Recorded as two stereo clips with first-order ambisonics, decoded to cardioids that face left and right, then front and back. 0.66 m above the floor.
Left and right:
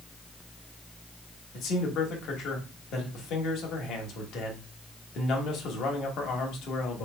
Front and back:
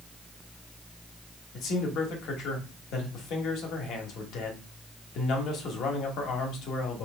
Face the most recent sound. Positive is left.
turn(degrees=40)